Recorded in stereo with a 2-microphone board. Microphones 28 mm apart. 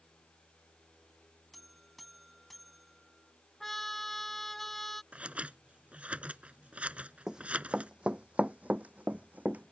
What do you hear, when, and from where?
1.5 s a buzzer: 5° right (ahead or behind)
3.6 s a trumpet: 15° left (ahead or behind)
5.1 s scissors: 60° right (ahead or behind)
7.3 s running footsteps: 20° right (ahead or behind); by 9.7 s 75° right (ahead or behind)